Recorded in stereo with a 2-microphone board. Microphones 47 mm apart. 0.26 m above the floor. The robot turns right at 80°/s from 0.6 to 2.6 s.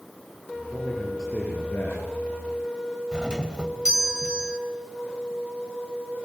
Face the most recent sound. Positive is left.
turn(degrees=-20)  # may be behind; listen again after turning